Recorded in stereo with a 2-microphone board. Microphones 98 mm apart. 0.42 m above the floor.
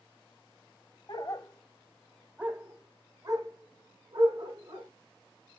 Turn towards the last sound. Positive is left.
turn(degrees=-50)  # may be behind; listen again after turning